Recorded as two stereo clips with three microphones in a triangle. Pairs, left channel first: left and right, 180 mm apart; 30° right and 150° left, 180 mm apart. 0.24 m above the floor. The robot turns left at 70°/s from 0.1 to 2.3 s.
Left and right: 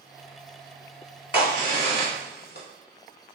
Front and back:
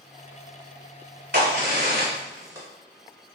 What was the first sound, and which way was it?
A crack, 145° left.